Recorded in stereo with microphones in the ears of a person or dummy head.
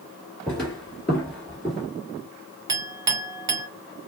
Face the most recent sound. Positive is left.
turn(degrees=-20)  # may be behind; listen again after turning